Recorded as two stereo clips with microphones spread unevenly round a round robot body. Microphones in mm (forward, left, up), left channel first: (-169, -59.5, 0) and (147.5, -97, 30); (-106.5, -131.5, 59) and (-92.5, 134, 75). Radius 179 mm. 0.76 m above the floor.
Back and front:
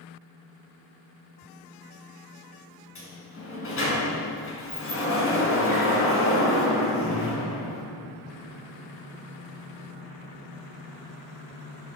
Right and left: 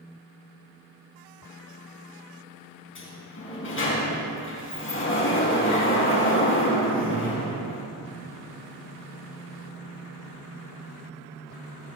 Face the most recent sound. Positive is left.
turn(degrees=-135)